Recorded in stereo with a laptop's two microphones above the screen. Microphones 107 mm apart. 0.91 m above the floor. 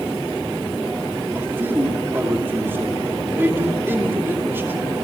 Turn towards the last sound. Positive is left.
turn(degrees=-20)  # may be behind; listen again after turning